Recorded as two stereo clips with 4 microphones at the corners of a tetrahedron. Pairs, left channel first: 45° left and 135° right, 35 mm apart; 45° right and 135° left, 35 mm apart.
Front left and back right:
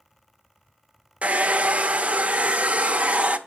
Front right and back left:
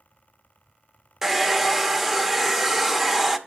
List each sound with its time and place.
1.2 s a hair dryer: 145° right, 0.6 m